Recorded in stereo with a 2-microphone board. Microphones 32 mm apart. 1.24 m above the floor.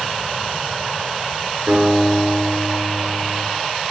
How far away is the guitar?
About 8.5 m.